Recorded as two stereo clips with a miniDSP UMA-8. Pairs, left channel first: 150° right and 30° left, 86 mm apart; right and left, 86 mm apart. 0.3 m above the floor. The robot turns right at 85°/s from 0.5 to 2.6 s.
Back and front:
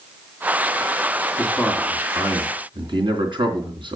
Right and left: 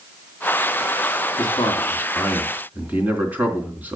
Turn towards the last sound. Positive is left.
turn(degrees=20)